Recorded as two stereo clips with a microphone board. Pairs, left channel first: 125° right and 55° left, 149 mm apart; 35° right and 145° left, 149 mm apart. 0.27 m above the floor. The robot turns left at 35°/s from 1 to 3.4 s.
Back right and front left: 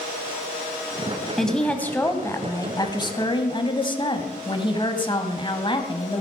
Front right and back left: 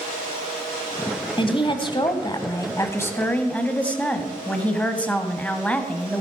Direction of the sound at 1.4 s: 35° right.